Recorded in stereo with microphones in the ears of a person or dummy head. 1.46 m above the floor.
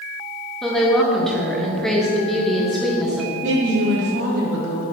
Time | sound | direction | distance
0.6 | a woman speaking | 5° left (ahead or behind) | 1.4 m
3.4 | a woman speaking | 70° right (ahead or behind) | 2.5 m